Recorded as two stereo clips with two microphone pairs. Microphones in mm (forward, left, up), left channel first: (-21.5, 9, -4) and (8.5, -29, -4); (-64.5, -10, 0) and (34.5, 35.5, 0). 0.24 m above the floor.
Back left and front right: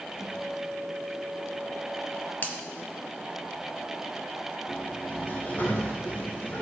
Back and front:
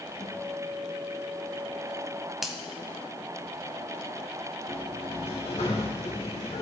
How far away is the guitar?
About 4.5 m.